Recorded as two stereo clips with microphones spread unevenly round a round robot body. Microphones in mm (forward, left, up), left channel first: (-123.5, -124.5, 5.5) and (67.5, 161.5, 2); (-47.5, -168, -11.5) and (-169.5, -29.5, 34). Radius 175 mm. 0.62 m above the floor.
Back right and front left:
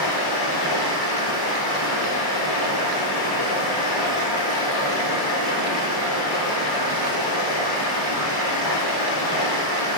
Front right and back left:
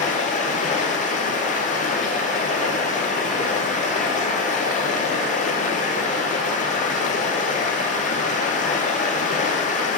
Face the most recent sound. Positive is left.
turn(degrees=-105)